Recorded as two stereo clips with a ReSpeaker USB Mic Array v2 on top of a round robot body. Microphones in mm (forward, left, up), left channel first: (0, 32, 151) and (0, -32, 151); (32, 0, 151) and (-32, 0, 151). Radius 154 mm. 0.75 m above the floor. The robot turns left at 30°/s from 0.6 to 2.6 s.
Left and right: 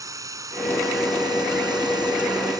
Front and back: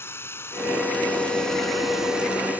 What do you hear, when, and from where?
0.0 s running water: 55° right; by 2.6 s 115° right